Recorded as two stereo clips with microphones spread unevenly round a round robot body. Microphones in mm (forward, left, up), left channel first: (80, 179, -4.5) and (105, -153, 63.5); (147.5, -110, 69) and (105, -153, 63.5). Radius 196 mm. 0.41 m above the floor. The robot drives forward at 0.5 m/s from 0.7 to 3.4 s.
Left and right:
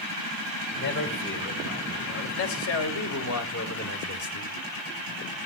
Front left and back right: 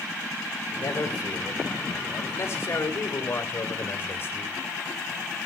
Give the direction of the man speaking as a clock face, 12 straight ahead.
10 o'clock.